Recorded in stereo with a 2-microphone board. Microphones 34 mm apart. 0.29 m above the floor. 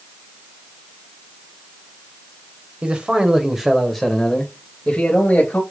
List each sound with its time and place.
2.8 s a man speaking: 30° right (ahead or behind), 1.0 m; by 5.6 s 45° left (ahead or behind), 1.2 m